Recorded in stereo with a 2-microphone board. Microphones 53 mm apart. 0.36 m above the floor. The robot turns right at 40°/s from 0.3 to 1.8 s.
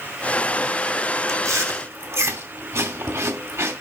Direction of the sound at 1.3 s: 65° right (ahead or behind).